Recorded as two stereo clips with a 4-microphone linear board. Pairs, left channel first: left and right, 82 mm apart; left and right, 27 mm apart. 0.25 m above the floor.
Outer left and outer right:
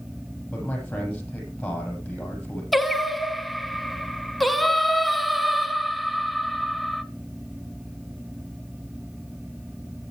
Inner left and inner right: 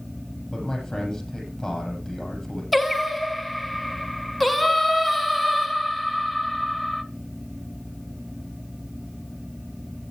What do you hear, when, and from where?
0.5 s a man speaking: 10° left (ahead or behind), 7 m
2.7 s singing: centre (ahead or behind), 0.8 m